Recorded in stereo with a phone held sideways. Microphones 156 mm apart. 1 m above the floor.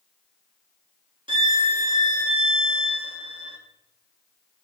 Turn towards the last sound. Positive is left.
turn(degrees=-30)  # may be behind; listen again after turning